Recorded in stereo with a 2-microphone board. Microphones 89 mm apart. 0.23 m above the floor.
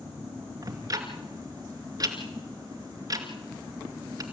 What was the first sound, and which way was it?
Ticking, 45° right (ahead or behind).